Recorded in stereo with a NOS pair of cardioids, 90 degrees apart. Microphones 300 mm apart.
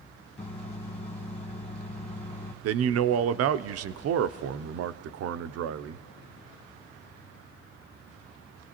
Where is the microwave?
20° left, 1.4 m.